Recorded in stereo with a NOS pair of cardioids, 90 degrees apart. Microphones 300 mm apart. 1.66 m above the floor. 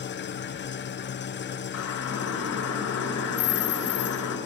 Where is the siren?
65° left, 6 m.